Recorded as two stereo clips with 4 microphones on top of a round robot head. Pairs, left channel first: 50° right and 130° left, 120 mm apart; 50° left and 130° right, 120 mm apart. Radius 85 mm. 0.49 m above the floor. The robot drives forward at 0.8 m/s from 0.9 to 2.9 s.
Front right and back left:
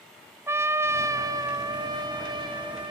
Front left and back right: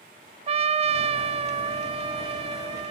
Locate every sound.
0.5 s a trumpet: 160° right, 0.7 m; by 2.9 s 175° right, 2 m